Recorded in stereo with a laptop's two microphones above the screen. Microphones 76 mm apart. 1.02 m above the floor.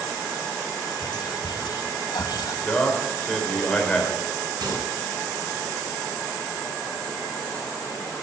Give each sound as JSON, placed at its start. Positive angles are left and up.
{"t": 1.0, "sound": "whispering", "side_deg": 70, "distance_m": 1.6}
{"t": 2.6, "sound": "a man speaking", "side_deg": 15, "distance_m": 4.0}
{"t": 4.6, "sound": "a microwave", "side_deg": -60, "distance_m": 4.5}